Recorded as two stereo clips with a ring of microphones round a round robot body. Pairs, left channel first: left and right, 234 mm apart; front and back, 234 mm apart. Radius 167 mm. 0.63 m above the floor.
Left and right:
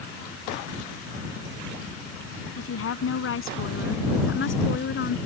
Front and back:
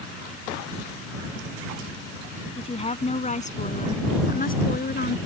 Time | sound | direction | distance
2.6 | a woman speaking | 65° left | ?